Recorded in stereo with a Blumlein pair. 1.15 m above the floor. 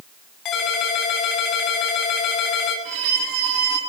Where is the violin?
35° right, 9 m.